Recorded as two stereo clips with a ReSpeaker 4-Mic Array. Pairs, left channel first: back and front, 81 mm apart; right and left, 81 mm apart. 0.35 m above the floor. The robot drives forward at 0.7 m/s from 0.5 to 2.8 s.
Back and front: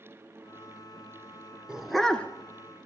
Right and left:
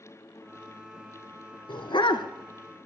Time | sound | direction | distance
1.7 | a dog barking | 80° right | 0.9 m